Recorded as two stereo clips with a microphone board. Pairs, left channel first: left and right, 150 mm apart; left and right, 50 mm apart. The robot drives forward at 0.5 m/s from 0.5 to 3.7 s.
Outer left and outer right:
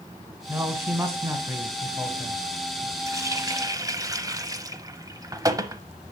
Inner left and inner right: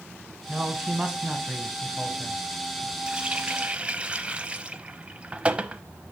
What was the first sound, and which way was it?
A man speaking, 15° right (ahead or behind).